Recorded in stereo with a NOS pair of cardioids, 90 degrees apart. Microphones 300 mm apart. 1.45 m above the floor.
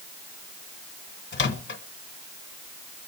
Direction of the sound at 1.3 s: 35° left.